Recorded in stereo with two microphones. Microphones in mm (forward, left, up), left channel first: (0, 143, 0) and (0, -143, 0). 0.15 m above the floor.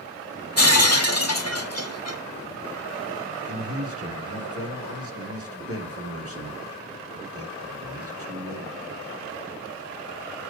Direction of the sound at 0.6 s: 60° left (ahead or behind).